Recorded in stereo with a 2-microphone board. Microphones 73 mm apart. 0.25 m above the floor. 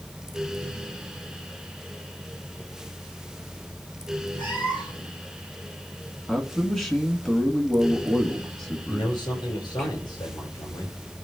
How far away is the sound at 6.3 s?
About 2 m.